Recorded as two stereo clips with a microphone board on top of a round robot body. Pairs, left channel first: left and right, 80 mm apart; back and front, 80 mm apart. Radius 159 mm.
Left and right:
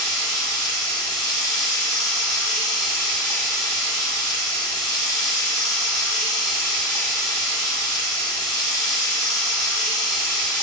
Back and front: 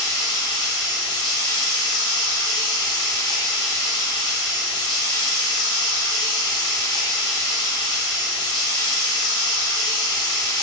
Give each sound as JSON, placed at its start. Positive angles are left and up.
{"t": 0.0, "sound": "running water", "azimuth_deg": 175, "distance_m": 0.8}